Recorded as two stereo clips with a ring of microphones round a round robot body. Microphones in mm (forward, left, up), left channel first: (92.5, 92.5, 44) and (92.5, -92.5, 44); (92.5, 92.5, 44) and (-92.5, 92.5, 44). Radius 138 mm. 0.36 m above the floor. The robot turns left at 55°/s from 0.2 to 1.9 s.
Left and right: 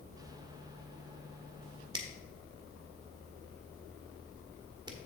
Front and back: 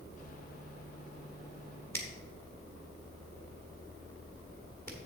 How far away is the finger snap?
About 1.3 m.